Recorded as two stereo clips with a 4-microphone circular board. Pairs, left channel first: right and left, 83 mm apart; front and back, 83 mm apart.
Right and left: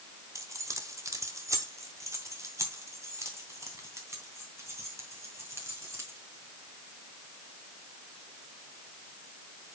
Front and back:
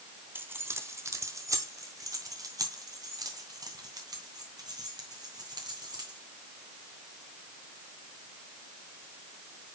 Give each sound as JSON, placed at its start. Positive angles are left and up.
{"t": 0.3, "sound": "keys jangling", "azimuth_deg": 125, "distance_m": 1.0}